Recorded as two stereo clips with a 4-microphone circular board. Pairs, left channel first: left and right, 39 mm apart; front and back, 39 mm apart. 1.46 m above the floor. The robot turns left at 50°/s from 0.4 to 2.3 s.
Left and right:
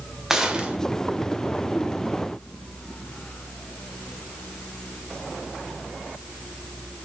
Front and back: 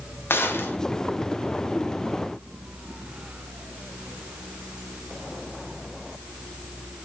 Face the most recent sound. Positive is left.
turn(degrees=-105)